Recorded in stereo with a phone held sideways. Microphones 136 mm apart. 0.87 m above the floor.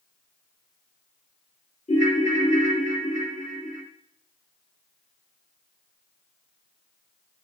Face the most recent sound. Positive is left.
turn(degrees=60)  # may be behind; listen again after turning